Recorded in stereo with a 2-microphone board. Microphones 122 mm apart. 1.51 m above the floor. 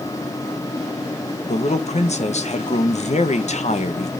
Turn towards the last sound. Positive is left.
turn(degrees=65)  # may be behind; listen again after turning